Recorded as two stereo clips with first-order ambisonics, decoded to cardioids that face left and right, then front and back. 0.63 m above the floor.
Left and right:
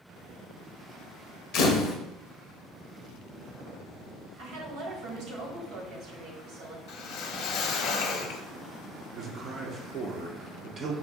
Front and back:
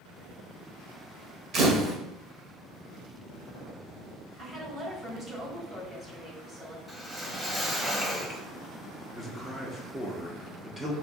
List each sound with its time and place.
1.5 s a camera shutter: 125° left, 0.8 m
4.4 s a woman speaking: 115° right, 1.4 m
6.9 s a whoosh: 100° left, 0.6 m
9.2 s a man speaking: 105° right, 0.6 m